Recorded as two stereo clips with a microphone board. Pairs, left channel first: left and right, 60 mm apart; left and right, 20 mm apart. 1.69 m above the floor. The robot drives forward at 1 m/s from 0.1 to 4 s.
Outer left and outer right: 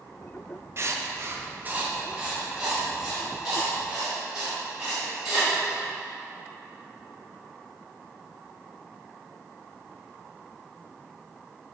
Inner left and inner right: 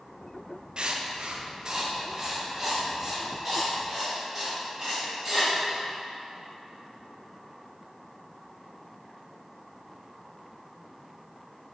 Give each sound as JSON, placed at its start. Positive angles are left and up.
{"t": 0.8, "sound": "writing", "side_deg": -45, "distance_m": 0.6}